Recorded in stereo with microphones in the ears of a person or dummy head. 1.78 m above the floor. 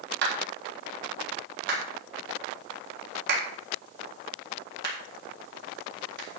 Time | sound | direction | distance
0.2 | a clap | 70° right (ahead or behind) | 3.5 m